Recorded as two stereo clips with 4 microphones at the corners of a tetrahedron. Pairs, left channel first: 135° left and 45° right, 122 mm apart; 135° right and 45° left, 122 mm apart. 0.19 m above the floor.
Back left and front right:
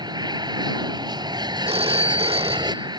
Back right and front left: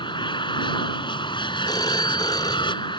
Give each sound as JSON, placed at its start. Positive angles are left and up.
{"t": 0.0, "sound": "an aircraft", "azimuth_deg": -95}
{"t": 1.7, "sound": "a phone ringing", "azimuth_deg": -80}